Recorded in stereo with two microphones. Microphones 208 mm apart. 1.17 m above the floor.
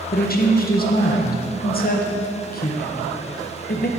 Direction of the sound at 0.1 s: 45° left (ahead or behind).